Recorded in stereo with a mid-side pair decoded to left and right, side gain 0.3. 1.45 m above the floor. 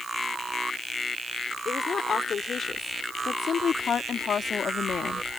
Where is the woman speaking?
65° left; by 5.3 s 75° left.